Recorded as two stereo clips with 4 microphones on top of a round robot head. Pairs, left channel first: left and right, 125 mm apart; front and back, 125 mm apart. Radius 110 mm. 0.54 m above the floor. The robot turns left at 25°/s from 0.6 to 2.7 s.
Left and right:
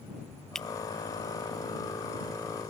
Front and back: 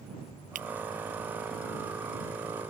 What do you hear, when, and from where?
0.6 s breaking glass: 175° left